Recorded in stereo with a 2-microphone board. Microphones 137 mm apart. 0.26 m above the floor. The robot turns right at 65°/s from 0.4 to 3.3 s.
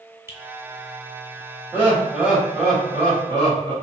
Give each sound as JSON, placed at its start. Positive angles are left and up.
{"t": 0.3, "sound": "a finger snap", "side_deg": -20, "distance_m": 0.8}
{"t": 1.7, "sound": "laughter", "side_deg": -20, "distance_m": 1.5}